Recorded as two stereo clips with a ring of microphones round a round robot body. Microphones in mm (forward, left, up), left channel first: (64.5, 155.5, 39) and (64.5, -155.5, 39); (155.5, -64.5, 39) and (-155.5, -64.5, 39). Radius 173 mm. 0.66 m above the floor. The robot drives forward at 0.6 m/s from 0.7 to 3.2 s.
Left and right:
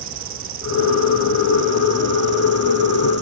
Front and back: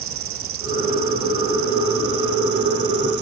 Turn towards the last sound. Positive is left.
turn(degrees=-150)